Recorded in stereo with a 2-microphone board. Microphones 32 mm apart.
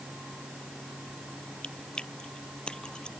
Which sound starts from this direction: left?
Chewing, at 1.6 s.